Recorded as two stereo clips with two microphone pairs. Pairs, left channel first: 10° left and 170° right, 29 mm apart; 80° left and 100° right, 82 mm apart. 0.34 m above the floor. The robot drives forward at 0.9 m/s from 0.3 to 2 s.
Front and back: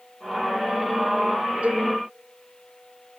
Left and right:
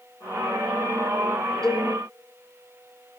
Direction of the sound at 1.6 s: 160° left.